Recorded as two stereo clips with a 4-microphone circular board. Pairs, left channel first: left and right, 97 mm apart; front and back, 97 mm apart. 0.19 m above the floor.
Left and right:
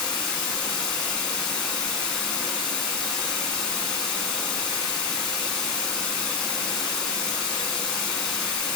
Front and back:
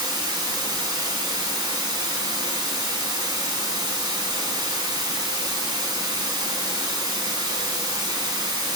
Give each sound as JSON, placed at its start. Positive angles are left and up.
{"t": 0.0, "sound": "running water", "azimuth_deg": 170, "distance_m": 1.1}